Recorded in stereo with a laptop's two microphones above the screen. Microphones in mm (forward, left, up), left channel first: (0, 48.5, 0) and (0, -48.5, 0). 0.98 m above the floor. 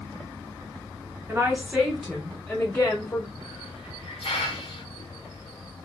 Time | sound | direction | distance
1.3 | a woman speaking | 25° right (ahead or behind) | 0.8 m
3.4 | a hiss | 80° left | 0.8 m